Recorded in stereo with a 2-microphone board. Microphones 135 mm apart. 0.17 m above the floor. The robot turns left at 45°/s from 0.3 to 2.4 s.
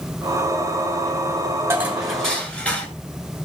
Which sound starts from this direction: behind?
Dishes clattering, at 1.7 s.